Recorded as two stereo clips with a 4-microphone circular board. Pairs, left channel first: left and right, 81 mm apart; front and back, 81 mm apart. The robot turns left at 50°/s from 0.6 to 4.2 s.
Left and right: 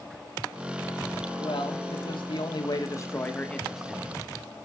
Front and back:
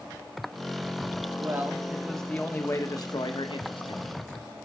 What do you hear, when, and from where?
1.4 s a man speaking: 120° left, 1.7 m; by 4.2 s 20° right, 1.7 m